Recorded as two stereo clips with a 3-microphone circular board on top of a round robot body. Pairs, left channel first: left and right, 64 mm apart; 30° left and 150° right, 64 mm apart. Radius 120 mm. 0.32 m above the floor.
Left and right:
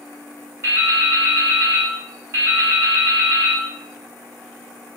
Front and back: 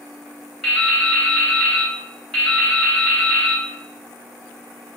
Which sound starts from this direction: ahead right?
Dripping, at 0.6 s.